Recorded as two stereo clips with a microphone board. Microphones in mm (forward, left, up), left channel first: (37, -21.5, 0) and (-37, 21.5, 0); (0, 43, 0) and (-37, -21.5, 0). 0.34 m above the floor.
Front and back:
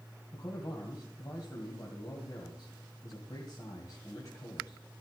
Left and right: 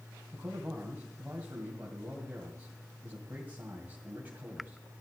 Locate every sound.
0.3 s a man speaking: 60° right, 2 m